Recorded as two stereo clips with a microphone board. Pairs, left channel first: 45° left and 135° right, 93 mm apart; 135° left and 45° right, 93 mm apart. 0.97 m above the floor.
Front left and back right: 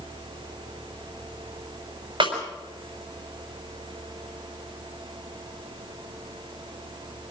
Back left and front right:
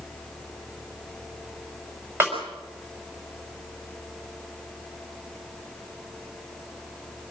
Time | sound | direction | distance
2.2 | a snare drum | 110° right | 5.5 m